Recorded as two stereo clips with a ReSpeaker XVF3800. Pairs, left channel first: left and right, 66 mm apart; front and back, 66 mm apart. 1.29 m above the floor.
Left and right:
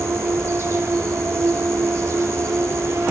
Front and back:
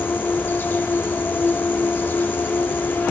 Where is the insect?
55° right, 1.3 m.